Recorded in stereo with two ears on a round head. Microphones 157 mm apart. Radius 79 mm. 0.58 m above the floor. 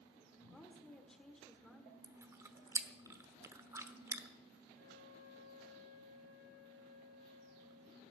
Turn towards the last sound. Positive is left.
turn(degrees=-65)  # may be behind; listen again after turning